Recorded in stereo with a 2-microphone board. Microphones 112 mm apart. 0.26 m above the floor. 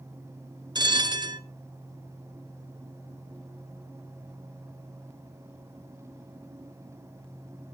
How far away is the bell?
About 1.1 m.